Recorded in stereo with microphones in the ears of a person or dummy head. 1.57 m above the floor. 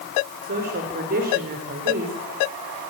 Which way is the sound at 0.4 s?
45° right (ahead or behind).